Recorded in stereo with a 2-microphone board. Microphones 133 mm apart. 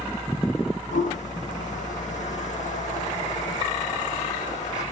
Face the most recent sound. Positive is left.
turn(degrees=70)  # may be behind; listen again after turning